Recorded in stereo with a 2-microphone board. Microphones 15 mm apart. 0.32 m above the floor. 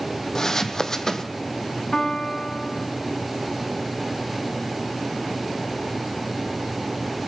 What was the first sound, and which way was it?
Footsteps, 30° left (ahead or behind).